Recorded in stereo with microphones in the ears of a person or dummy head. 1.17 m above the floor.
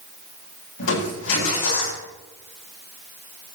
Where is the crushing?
85° left, 9 m.